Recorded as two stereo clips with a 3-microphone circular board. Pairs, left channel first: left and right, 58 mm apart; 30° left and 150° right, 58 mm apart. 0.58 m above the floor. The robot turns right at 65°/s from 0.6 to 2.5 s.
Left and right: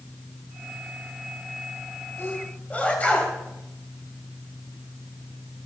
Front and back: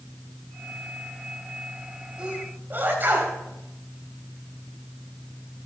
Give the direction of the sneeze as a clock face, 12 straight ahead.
8 o'clock.